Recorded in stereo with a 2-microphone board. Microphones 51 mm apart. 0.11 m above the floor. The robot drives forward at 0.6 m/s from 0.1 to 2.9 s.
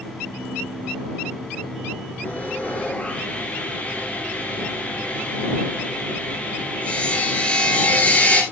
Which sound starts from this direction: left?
Sawing, at 2.2 s.